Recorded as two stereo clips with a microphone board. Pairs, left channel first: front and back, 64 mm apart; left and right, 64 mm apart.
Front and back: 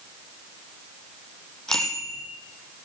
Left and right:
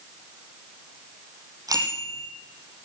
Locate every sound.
1.7 s a bicycle bell: 80° right, 5 m